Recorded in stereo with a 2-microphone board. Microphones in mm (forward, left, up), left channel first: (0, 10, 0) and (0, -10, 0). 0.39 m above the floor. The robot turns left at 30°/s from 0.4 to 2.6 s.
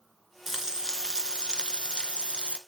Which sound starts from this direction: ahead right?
Frying, at 0.5 s.